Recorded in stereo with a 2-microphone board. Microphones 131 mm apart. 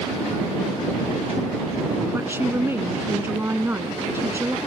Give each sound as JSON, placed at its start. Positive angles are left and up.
{"t": 2.1, "sound": "a woman speaking", "side_deg": -20}